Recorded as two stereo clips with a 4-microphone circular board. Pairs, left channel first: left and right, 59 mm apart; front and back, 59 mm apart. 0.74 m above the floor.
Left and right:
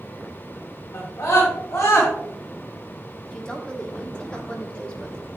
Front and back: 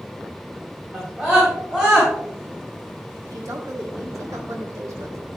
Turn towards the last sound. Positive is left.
turn(degrees=165)